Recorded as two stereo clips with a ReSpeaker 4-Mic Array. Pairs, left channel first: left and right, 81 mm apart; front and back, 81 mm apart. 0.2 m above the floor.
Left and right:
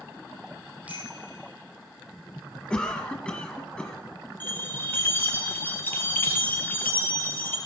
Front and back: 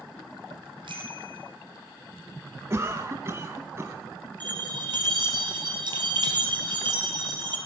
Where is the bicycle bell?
165° right, 5 m.